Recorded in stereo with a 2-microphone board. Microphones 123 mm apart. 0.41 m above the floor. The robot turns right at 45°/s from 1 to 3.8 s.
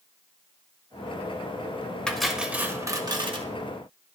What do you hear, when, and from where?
2.1 s cutlery clinking: 170° left, 0.7 m; by 3.5 s 125° right, 0.7 m